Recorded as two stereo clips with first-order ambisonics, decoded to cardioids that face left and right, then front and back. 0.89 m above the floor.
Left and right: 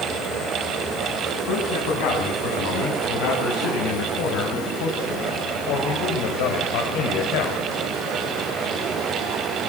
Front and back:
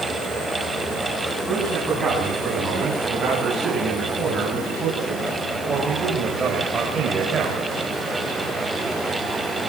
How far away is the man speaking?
About 9 m.